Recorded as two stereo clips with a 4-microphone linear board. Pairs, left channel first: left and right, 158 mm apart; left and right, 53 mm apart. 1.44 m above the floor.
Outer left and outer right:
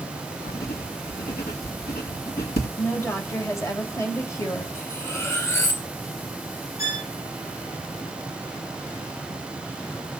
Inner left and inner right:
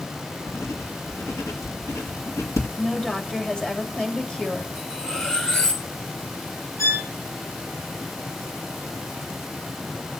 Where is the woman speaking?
20° left (ahead or behind), 3 m.